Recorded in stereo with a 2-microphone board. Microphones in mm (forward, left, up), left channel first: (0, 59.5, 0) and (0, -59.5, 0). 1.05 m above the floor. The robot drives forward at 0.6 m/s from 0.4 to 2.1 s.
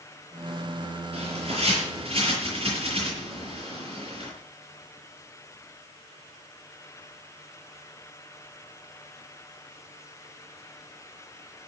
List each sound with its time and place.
1.1 s a bird: 55° right (ahead or behind), 7 m; by 4.3 s 50° right (ahead or behind), 7.5 m